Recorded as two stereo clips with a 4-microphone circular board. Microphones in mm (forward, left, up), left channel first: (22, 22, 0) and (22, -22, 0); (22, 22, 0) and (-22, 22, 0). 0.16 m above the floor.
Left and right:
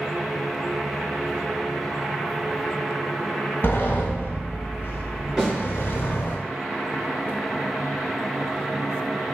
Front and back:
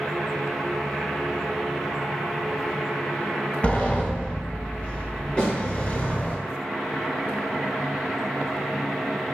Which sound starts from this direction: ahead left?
A sliding door, at 3.6 s.